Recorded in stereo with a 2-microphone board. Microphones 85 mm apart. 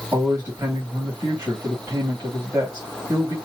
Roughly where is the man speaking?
Right.